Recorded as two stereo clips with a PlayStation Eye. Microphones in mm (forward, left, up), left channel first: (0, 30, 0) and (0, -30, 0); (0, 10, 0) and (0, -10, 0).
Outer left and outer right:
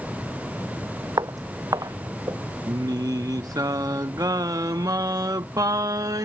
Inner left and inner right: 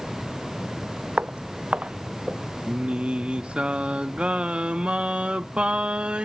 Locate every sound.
1.2 s footsteps: 80° right
2.7 s singing: 85° right